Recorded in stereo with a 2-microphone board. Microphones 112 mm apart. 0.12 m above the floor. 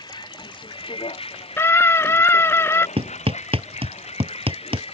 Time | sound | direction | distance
0.0 | a vehicle | 40° left (ahead or behind) | ?
1.6 | a scream | 20° left (ahead or behind) | ?
3.0 | hammering | 60° right (ahead or behind) | ?